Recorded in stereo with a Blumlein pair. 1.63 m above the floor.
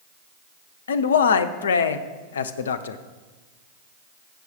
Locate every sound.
0.9 s a man speaking: 65° left, 0.5 m